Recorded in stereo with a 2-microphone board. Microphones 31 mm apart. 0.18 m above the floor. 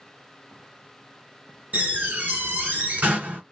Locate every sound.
1.7 s a door slam: 50° right (ahead or behind), 1.9 m